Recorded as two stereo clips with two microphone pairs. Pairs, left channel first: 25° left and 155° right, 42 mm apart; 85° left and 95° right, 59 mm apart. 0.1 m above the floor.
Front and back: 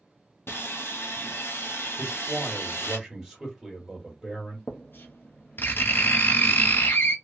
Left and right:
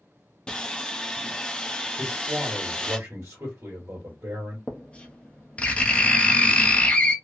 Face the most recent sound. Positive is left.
turn(degrees=20)